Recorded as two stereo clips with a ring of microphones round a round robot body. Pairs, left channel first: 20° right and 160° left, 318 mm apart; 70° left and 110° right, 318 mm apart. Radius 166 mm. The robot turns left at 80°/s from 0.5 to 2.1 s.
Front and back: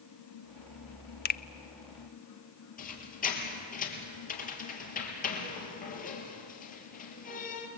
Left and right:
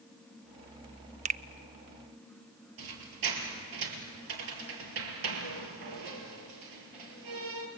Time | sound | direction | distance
1.2 | a finger snap | 60° right | 0.5 m
2.8 | a squeak | 90° right | 3 m